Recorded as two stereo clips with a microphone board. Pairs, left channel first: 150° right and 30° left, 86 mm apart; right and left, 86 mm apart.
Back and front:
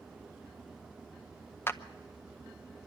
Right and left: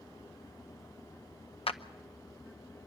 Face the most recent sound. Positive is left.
turn(degrees=-85)